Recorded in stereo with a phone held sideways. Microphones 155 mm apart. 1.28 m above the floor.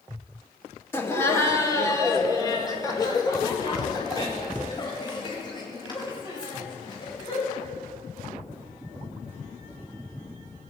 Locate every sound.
0.9 s laughter: 15° left (ahead or behind), 2 m; by 7.6 s 30° left (ahead or behind), 7.5 m